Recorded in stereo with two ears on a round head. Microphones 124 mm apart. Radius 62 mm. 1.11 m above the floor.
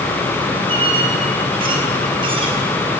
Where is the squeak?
40° right (ahead or behind), 4.5 m.